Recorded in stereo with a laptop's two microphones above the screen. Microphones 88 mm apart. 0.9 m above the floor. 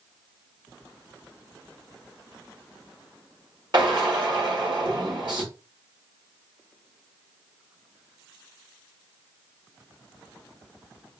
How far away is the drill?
About 1.7 m.